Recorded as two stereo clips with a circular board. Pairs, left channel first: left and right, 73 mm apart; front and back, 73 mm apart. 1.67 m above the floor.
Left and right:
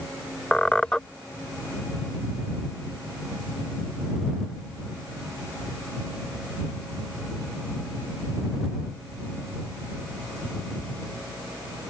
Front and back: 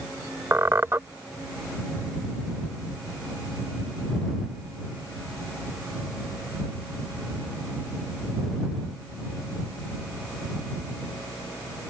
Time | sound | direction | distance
0.5 | a squeak | 160° left | ?